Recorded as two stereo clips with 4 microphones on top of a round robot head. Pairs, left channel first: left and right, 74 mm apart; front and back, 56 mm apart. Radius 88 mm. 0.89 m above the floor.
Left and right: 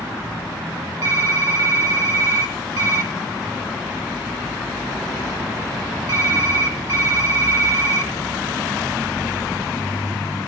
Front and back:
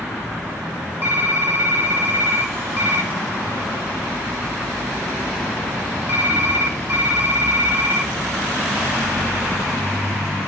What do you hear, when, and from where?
1.0 s typing on a keyboard: 115° right, 0.6 m